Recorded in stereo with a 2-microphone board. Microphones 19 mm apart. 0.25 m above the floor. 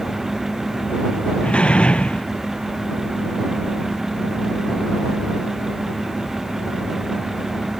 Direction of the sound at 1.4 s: 70° left (ahead or behind).